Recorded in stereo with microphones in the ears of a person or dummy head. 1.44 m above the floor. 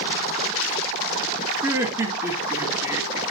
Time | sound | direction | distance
1.6 | laughter | 15° right (ahead or behind) | 2.5 m